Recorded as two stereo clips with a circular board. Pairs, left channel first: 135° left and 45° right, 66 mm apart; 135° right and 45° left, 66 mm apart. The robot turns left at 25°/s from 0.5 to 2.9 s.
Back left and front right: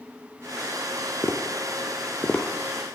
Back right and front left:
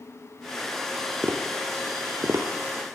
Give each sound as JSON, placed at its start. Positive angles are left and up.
{"t": 1.2, "sound": "tapping", "azimuth_deg": 100, "distance_m": 0.8}